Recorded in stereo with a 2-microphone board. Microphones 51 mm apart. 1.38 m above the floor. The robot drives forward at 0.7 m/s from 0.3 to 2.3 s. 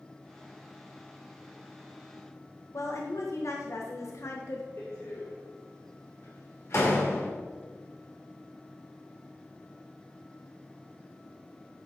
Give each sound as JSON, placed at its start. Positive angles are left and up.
{"t": 2.7, "sound": "a woman speaking", "side_deg": 70, "distance_m": 1.3}
{"t": 4.8, "sound": "a door slam", "side_deg": 60, "distance_m": 3.0}